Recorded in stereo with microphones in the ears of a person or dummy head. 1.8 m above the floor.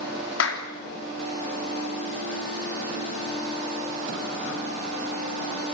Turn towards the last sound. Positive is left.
turn(degrees=75)  # may be behind; listen again after turning